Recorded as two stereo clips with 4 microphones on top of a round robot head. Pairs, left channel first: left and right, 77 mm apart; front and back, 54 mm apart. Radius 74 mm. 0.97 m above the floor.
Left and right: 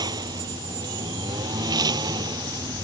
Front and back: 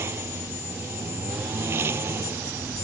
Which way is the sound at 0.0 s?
125° right.